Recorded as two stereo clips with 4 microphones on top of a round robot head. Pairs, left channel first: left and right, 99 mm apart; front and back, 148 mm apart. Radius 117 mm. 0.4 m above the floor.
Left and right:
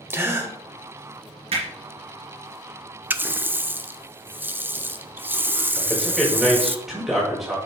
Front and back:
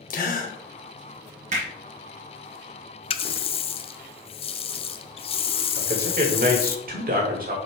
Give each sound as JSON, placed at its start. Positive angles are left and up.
{"t": 0.1, "sound": "a gasp", "azimuth_deg": -25, "distance_m": 1.5}
{"t": 1.5, "sound": "hammering", "azimuth_deg": -130, "distance_m": 2.5}
{"t": 3.1, "sound": "a running tap", "azimuth_deg": -25, "distance_m": 0.6}
{"t": 5.8, "sound": "a man speaking", "azimuth_deg": 180, "distance_m": 2.5}